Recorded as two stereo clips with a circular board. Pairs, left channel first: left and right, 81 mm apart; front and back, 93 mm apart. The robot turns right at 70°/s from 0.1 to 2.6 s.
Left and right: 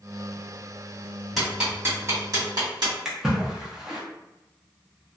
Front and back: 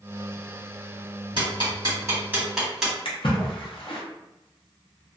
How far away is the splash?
About 0.7 m.